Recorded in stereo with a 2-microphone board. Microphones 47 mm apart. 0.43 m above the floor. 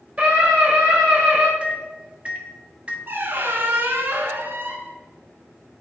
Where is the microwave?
25° right (ahead or behind), 0.6 m.